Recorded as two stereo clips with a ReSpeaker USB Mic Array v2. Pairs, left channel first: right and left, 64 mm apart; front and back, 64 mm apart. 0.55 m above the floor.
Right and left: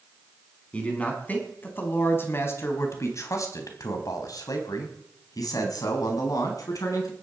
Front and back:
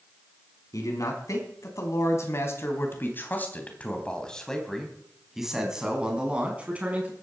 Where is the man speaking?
20° right, 5 m; by 7.1 s 115° right, 5 m.